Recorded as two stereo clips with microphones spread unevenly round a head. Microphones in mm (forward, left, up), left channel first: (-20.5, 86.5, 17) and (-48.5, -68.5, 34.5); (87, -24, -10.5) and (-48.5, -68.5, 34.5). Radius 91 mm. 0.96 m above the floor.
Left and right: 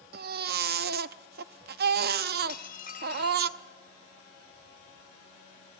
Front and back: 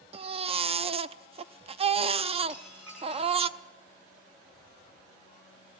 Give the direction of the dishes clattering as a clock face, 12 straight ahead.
8 o'clock.